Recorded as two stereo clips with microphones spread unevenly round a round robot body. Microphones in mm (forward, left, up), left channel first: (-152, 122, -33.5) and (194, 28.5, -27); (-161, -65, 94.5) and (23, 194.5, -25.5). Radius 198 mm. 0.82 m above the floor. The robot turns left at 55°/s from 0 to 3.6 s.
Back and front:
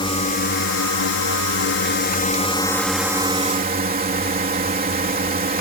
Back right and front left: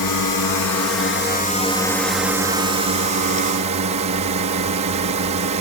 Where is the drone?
125° right; by 5.6 s 40° left.